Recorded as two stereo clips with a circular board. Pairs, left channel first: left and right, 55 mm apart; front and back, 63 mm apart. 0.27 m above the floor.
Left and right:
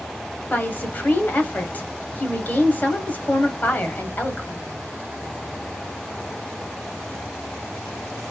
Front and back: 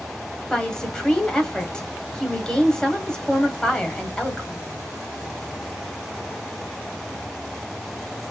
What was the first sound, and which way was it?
A woman speaking, 70° left.